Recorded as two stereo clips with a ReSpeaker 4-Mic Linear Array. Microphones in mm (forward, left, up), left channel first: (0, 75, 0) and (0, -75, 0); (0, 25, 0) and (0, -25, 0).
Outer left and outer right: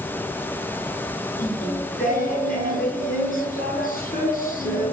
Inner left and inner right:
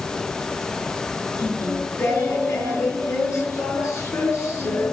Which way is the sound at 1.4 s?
65° left (ahead or behind).